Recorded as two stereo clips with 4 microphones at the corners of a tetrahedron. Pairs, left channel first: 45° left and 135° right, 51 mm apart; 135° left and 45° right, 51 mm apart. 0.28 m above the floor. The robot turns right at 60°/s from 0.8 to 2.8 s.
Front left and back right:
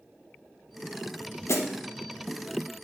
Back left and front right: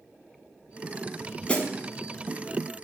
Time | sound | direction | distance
1.5 | a snare drum | 70° left | 0.5 m